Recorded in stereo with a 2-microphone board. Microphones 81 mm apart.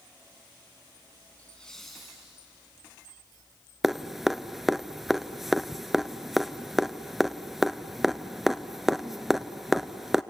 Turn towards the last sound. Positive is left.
turn(degrees=0)  # may be behind; listen again after turning